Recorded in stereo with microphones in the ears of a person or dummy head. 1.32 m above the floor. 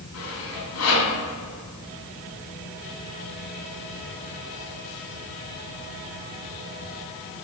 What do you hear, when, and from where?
0.1 s sawing: 80° left, 4.5 m